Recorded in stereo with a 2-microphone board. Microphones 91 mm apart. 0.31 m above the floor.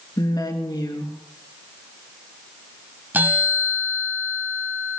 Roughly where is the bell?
Centre.